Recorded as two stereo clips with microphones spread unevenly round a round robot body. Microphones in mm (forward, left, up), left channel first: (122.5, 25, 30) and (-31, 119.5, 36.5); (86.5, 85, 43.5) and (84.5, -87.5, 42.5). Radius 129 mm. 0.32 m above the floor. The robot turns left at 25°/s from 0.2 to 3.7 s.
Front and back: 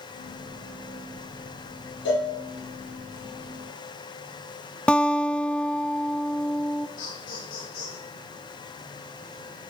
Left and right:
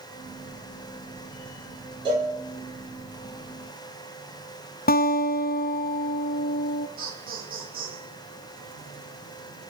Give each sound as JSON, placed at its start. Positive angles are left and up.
{"t": 2.0, "sound": "a cowbell", "azimuth_deg": -25, "distance_m": 9.5}
{"t": 4.9, "sound": "a guitar", "azimuth_deg": 55, "distance_m": 0.8}
{"t": 7.0, "sound": "laughter", "azimuth_deg": -55, "distance_m": 7.0}